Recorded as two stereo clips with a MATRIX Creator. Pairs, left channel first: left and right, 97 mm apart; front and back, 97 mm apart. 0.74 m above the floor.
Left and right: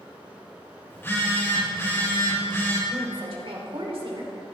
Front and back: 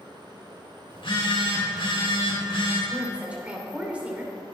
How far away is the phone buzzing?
About 3.5 m.